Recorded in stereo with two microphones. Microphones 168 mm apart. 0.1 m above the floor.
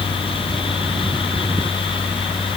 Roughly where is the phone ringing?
I don't hear a phone ringing.